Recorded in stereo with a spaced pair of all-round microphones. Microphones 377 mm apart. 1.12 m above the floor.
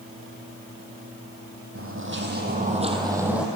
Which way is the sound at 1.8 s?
35° right (ahead or behind).